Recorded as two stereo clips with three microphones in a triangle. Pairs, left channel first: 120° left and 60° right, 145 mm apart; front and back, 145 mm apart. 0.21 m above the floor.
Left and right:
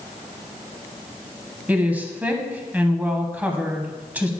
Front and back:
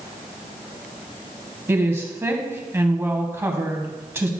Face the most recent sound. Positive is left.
turn(degrees=-125)